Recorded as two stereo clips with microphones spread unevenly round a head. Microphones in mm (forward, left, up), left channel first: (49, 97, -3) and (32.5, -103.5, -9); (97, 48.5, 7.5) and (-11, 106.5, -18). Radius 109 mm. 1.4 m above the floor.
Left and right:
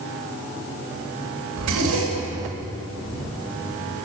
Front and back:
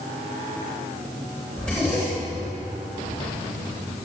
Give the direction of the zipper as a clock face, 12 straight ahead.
4 o'clock.